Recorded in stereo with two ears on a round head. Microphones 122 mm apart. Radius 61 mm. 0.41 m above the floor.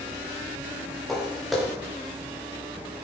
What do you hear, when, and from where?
1.1 s footsteps: centre (ahead or behind), 3 m